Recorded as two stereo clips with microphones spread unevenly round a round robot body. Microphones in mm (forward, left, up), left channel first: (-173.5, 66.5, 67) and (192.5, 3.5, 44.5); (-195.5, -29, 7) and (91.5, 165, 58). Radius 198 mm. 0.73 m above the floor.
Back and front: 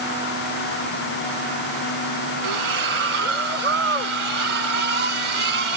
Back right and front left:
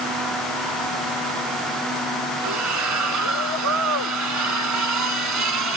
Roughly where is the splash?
Ahead.